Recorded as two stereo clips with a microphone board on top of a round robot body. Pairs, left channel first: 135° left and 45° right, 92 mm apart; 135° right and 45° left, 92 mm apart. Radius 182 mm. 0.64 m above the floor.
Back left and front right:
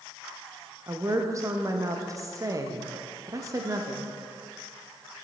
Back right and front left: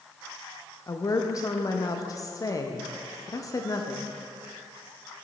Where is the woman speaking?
90° right, 0.8 m.